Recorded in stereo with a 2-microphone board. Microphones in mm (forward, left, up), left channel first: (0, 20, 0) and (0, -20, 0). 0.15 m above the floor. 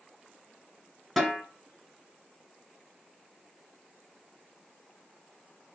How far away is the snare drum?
About 2 m.